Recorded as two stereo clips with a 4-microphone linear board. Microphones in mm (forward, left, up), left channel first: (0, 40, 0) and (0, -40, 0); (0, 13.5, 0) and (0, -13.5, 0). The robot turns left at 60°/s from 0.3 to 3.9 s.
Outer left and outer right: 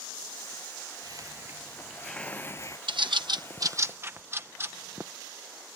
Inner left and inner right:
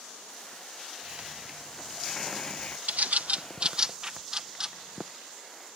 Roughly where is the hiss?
Behind right.